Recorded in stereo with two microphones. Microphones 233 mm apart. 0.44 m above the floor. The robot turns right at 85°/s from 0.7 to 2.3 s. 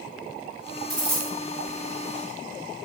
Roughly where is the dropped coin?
Ahead right.